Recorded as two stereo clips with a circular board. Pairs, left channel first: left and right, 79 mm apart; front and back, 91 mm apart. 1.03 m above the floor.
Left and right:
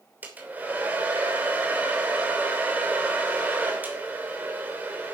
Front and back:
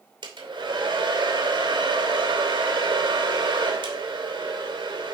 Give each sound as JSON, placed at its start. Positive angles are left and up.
{"t": 0.2, "sound": "a hair dryer", "azimuth_deg": -160, "distance_m": 3.0}